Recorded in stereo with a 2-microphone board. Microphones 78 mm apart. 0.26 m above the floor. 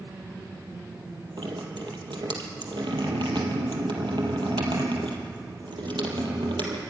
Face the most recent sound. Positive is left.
turn(degrees=-85)